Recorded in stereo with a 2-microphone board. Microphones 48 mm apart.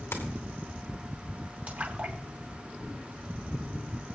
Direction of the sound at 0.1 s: 60° left (ahead or behind).